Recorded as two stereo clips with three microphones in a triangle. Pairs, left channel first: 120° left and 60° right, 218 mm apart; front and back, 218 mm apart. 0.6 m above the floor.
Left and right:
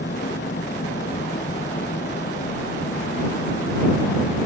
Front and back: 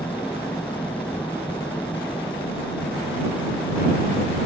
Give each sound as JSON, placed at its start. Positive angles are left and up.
{"t": 0.0, "sound": "an engine running", "azimuth_deg": 85}